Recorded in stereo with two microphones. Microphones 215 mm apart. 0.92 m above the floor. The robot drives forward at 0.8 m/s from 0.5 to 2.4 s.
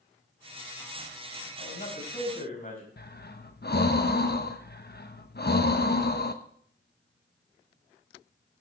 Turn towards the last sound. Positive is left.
turn(degrees=50)  # may be behind; listen again after turning